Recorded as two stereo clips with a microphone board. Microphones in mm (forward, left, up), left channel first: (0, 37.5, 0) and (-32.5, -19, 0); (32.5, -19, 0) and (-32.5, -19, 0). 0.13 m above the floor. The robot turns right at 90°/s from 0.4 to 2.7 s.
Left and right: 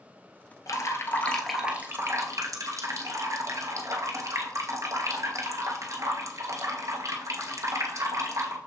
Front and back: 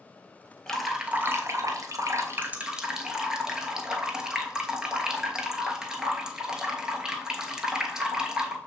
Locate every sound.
0.7 s dripping: 75° left, 0.7 m; by 8.6 s 100° right, 0.7 m